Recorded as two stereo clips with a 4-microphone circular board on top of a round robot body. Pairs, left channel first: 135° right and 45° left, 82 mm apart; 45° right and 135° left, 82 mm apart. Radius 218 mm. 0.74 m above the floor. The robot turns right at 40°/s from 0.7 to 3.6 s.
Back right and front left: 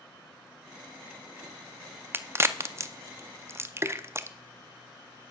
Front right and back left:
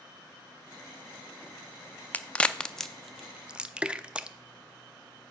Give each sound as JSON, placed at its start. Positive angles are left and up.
{"t": 2.1, "sound": "a crack", "azimuth_deg": 10, "distance_m": 0.7}